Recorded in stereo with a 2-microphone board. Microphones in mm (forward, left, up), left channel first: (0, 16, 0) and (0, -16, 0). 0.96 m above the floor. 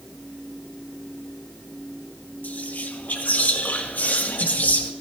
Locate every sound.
2.4 s whispering: 55° left (ahead or behind), 1.7 m